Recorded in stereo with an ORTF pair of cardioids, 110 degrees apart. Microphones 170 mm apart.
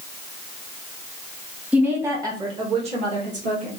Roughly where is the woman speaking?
Ahead.